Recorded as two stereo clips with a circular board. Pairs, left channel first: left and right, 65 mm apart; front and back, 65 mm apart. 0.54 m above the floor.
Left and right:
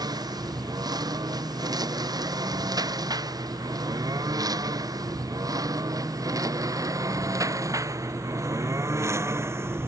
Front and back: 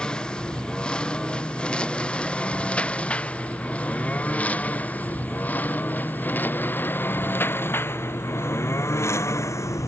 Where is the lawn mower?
75° right; by 9.9 s 40° right.